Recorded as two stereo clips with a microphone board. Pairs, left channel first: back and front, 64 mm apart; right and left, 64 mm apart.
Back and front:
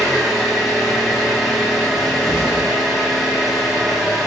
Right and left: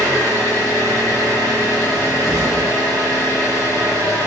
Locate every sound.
0.0 s an engine running: 85° left, 0.8 m
1.9 s a cupboard door: 170° left, 0.8 m